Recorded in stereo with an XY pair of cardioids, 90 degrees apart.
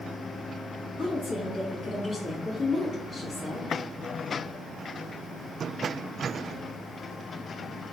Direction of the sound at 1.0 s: 60° left.